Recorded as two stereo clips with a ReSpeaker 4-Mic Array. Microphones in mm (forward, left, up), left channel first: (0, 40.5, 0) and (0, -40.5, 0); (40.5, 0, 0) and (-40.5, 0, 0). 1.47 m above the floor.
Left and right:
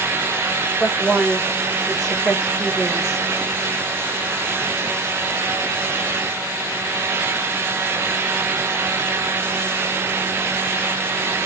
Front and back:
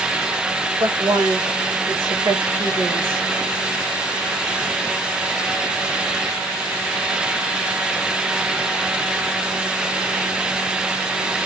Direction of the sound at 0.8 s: Straight behind.